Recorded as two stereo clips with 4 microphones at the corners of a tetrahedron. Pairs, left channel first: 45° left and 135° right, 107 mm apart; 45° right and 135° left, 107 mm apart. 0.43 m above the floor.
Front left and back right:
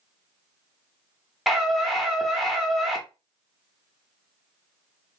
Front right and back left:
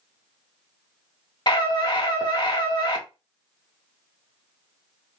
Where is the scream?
45° right, 1.1 m.